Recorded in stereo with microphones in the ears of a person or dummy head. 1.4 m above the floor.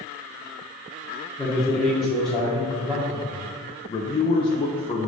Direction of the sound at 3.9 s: 25° left (ahead or behind).